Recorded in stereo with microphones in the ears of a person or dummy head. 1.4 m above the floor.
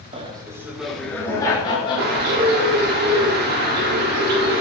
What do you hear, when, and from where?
0.1 s laughter: 30° right (ahead or behind), 1.4 m; by 2.8 s 40° left (ahead or behind), 3 m
2.0 s a bird: 55° right (ahead or behind), 1.3 m